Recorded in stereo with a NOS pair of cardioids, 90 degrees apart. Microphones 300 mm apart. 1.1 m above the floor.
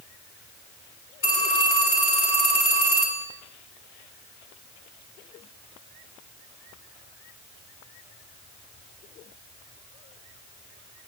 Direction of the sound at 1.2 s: 40° left.